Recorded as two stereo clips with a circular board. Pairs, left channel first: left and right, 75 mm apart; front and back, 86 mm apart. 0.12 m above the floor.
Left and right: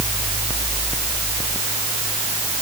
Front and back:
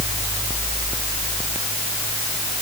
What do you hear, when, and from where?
Only background noise.